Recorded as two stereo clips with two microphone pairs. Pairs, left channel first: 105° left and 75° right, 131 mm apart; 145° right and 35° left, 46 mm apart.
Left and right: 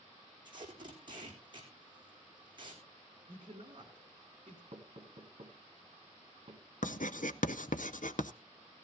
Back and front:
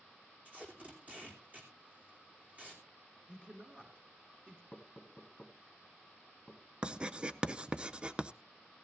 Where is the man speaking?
30° right, 3 m.